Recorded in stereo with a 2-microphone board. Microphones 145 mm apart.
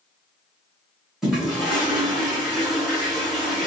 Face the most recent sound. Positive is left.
turn(degrees=-5)  # may be behind; listen again after turning